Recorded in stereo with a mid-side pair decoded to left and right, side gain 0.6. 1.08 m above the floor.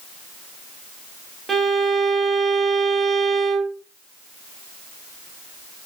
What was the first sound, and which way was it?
A violin, 25° right.